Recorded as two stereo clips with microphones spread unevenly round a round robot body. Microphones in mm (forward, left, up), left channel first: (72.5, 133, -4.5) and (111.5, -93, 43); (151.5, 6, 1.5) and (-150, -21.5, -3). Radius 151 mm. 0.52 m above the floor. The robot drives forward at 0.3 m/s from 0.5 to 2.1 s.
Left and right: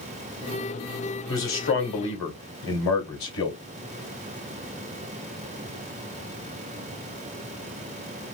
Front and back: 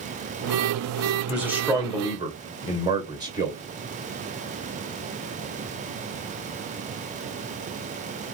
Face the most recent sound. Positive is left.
turn(degrees=110)